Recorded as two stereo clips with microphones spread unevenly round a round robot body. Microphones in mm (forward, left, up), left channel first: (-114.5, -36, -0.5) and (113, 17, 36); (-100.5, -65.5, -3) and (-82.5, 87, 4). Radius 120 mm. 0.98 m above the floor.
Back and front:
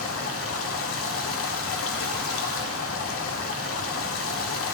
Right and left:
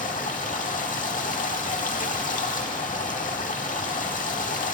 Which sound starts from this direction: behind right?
Running water, at 0.0 s.